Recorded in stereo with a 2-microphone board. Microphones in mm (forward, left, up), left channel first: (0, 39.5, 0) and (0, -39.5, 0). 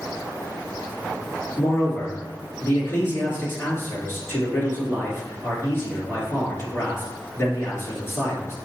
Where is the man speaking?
35° left (ahead or behind), 2.0 m.